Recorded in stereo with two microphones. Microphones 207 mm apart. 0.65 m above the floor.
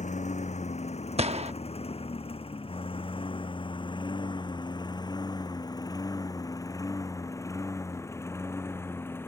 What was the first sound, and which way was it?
A lawn mower, 30° left (ahead or behind).